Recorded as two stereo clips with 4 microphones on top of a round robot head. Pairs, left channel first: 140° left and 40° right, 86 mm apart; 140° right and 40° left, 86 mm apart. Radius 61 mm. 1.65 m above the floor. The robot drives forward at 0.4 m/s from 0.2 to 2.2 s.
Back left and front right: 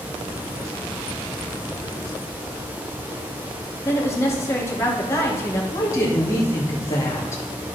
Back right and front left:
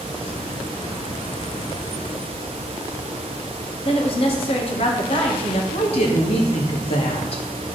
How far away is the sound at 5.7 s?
About 2.5 m.